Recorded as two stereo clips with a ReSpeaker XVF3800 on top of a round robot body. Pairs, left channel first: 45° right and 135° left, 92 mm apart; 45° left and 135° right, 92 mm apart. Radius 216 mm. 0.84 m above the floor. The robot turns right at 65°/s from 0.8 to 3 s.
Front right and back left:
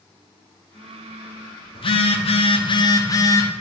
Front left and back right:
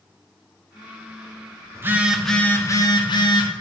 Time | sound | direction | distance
1.8 | a phone buzzing | 75° right | 1.5 m